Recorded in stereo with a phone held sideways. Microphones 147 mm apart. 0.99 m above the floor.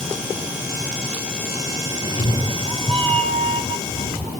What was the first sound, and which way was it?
A cat meowing, 35° right (ahead or behind).